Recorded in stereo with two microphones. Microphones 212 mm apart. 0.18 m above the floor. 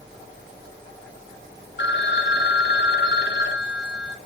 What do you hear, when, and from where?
1.8 s a phone ringing: 55° left (ahead or behind), 1.1 m